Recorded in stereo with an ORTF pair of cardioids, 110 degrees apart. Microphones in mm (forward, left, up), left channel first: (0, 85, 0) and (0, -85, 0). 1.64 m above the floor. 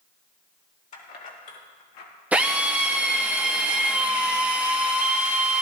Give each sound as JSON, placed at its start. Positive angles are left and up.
{"t": 0.9, "sound": "keys jangling", "azimuth_deg": 45, "distance_m": 3.0}
{"t": 2.3, "sound": "a drill", "azimuth_deg": -10, "distance_m": 1.5}